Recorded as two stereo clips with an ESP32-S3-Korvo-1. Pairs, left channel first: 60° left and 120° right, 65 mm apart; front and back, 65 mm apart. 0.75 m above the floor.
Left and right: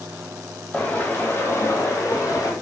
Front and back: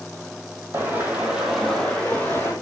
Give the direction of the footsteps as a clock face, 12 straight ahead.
8 o'clock.